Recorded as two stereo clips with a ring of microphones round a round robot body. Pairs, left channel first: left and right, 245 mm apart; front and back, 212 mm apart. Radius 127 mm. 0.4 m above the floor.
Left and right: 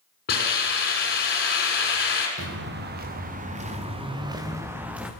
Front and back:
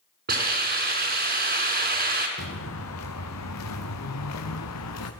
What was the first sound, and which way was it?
A hiss, 140° left.